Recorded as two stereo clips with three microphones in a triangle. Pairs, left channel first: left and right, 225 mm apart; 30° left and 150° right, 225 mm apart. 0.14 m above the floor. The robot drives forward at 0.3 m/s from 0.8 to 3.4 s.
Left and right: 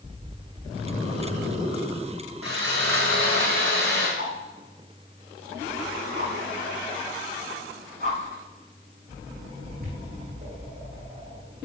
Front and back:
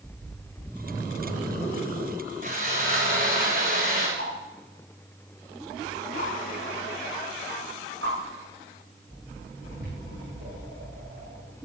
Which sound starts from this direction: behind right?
A whoosh, at 4.2 s.